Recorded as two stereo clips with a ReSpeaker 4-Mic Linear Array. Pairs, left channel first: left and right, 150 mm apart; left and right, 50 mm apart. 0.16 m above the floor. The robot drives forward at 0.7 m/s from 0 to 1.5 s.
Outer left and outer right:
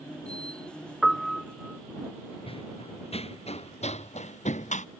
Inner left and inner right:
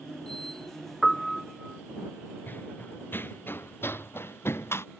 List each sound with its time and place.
1.0 s a piano: centre (ahead or behind)
2.5 s running footsteps: 40° left (ahead or behind); by 4.9 s 55° left (ahead or behind)